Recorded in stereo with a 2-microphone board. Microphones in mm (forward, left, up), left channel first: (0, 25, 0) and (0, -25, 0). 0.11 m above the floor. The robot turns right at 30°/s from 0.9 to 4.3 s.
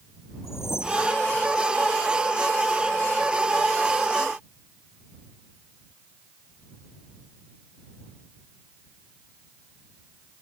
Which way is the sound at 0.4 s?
60° left (ahead or behind).